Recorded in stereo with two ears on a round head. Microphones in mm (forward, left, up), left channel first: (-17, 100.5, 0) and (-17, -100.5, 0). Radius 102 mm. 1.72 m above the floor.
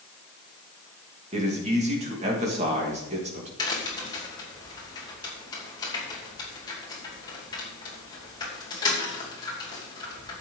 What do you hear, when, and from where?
1.3 s a man speaking: 30° right (ahead or behind), 3 m
3.6 s a crack: 20° left (ahead or behind), 2.5 m